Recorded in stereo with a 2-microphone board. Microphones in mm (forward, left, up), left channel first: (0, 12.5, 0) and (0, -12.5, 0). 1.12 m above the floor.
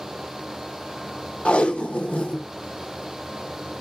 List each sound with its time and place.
1.4 s tape being pulled: 55° left (ahead or behind), 0.8 m